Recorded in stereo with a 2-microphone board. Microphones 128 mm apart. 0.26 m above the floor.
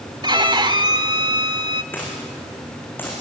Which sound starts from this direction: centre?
A dropped coin, at 1.9 s.